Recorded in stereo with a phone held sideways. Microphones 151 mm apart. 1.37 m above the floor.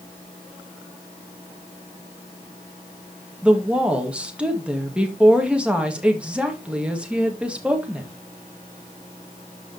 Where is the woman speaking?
5° right (ahead or behind), 2 m.